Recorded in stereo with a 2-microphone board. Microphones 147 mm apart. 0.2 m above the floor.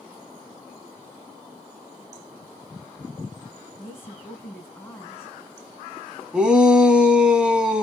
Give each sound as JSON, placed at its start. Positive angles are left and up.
{"t": 3.8, "sound": "a woman speaking", "side_deg": 15, "distance_m": 1.4}
{"t": 6.3, "sound": "a shout", "side_deg": -5, "distance_m": 1.1}